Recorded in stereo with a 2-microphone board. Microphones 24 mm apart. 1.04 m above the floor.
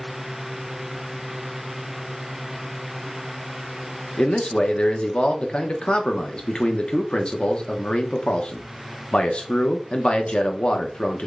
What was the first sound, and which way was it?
A man speaking, 45° left (ahead or behind).